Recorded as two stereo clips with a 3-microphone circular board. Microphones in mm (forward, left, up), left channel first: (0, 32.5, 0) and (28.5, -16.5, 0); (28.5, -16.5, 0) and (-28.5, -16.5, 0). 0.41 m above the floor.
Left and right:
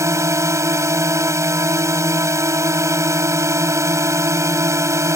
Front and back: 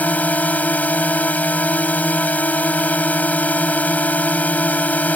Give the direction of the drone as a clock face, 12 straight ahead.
2 o'clock.